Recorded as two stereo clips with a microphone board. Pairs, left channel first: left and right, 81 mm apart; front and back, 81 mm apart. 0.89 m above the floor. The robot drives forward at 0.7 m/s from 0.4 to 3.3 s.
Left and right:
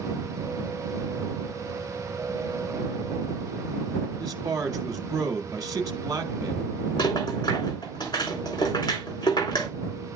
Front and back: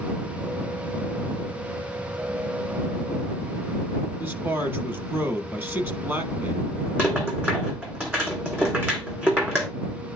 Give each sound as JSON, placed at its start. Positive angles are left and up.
{"t": 4.2, "sound": "a man speaking", "azimuth_deg": -120, "distance_m": 1.2}
{"t": 7.0, "sound": "a rattle", "azimuth_deg": 115, "distance_m": 2.5}